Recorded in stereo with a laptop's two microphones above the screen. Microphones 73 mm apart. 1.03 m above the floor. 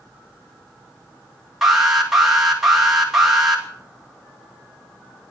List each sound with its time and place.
1.6 s an alarm: 5° right (ahead or behind), 2.5 m